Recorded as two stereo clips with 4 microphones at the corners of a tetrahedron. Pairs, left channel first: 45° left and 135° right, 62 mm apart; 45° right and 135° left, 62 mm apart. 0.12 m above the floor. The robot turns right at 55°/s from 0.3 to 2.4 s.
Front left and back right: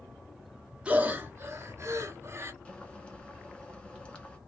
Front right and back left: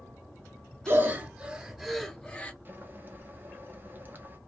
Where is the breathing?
165° left, 0.6 m; by 2.5 s 110° right, 0.6 m.